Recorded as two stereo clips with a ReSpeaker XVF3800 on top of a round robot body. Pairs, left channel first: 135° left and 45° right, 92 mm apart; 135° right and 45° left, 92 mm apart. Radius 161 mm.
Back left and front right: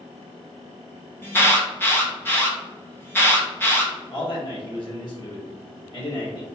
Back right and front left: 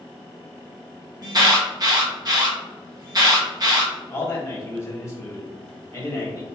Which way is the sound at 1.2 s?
75° left.